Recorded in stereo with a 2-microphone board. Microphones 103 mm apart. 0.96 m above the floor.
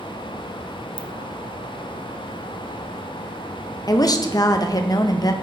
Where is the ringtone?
55° right (ahead or behind), 0.5 m.